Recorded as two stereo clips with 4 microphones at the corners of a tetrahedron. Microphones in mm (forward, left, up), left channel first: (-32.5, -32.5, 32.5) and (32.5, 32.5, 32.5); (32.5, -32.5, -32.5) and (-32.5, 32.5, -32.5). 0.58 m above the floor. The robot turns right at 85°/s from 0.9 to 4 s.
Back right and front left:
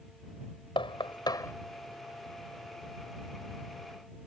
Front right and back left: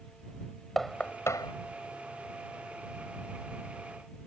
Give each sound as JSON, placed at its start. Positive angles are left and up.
{"t": 0.8, "sound": "knocking", "azimuth_deg": -130}